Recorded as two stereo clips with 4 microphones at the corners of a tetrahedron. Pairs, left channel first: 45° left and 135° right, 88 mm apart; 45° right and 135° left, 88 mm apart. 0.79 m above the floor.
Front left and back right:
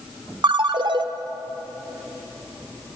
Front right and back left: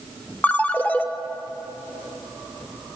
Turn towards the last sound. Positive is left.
turn(degrees=-115)